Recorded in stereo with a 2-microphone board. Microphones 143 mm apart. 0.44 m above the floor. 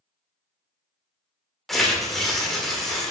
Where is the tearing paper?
Centre (ahead or behind), 0.7 m.